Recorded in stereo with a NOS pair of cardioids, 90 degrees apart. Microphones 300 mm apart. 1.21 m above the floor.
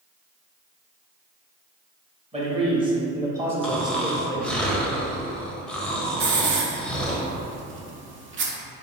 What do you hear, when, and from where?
2.3 s a man speaking: 20° right, 1.6 m; by 4.6 s 20° left, 0.7 m
3.6 s snoring: 5° left, 0.7 m
6.2 s a hiss: 40° right, 0.7 m